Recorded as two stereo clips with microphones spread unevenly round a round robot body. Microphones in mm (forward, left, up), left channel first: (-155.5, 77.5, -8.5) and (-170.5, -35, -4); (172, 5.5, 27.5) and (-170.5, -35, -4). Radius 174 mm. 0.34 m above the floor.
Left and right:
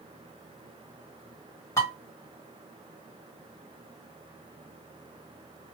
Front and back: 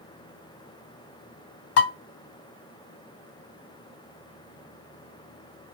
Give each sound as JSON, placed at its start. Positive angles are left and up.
{"t": 1.8, "sound": "dishes clattering", "azimuth_deg": 35, "distance_m": 1.0}